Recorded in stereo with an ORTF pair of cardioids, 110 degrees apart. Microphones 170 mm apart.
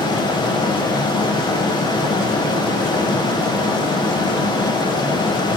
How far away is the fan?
About 1.7 m.